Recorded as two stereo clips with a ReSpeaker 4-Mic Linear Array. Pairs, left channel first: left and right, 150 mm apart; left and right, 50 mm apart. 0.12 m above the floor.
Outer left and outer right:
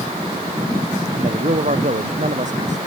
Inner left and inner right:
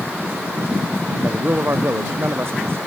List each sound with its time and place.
1.2 s a man speaking: 60° right (ahead or behind); by 2.8 s 55° right (ahead or behind)